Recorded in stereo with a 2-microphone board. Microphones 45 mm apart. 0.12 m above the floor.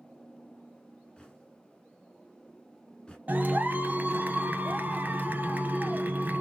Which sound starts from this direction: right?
A clap, at 3.3 s.